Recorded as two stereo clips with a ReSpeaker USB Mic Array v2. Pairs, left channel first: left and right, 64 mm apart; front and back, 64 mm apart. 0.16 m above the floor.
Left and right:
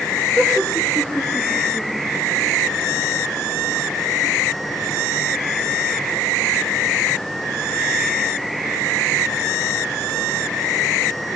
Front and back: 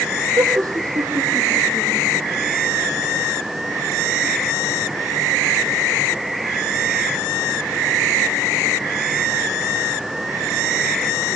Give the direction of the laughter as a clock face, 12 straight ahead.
7 o'clock.